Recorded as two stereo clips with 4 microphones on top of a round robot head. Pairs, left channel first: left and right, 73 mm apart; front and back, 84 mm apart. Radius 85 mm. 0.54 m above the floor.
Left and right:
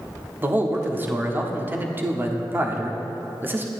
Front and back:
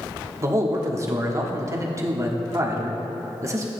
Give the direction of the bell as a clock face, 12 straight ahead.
I don't hear a bell.